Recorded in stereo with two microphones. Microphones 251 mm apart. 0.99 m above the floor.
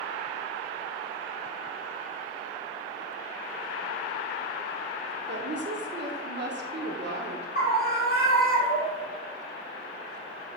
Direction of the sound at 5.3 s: 45° right (ahead or behind).